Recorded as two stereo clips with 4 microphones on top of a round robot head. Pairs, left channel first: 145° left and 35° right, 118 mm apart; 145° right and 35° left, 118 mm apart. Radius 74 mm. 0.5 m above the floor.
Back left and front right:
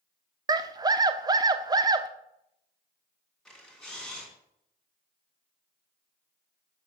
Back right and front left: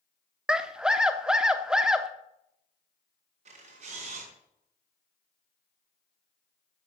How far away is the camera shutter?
About 4 m.